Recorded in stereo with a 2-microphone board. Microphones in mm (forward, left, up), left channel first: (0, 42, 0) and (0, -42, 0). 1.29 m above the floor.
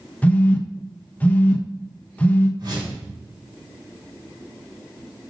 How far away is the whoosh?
About 3.5 m.